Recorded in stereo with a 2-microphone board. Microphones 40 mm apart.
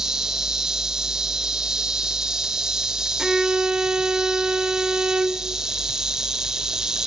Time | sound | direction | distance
0.0 | an insect | 15° right (ahead or behind) | 1.0 m
3.2 | a violin | 15° right (ahead or behind) | 1.1 m